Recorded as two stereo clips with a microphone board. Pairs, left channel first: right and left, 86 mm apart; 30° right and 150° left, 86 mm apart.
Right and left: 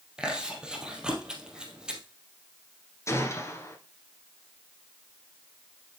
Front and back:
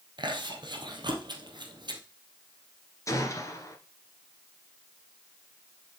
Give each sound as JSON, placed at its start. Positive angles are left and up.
{"t": 0.2, "sound": "chewing", "azimuth_deg": 170, "distance_m": 2.0}
{"t": 3.1, "sound": "a gunshot", "azimuth_deg": -55, "distance_m": 1.8}